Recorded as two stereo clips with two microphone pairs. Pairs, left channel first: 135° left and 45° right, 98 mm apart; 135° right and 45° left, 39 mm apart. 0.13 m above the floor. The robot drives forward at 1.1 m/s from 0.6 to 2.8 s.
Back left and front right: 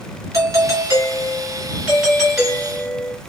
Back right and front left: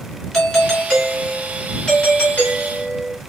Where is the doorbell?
60° right, 2.5 m; by 3.1 s 145° right, 3 m.